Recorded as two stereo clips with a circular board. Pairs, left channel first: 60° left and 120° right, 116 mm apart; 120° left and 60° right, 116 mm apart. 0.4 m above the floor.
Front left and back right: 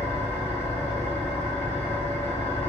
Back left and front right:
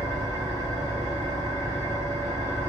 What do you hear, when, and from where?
0.0 s an engine running: 15° right, 1.4 m